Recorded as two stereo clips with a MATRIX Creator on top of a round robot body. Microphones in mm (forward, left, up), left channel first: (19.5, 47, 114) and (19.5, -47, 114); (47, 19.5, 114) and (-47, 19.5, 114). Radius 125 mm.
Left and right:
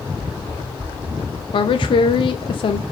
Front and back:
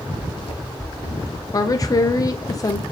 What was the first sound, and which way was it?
Running footsteps, 30° right.